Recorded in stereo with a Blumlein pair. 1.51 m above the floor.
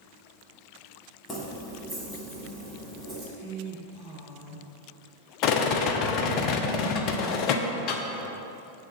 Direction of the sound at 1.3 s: 15° left.